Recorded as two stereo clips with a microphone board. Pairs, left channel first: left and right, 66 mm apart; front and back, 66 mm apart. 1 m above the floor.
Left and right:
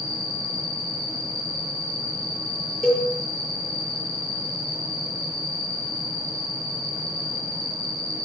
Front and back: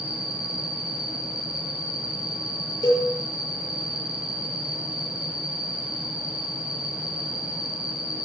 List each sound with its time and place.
0.0 s an insect: 105° right, 2.5 m
2.8 s a cowbell: straight ahead, 7 m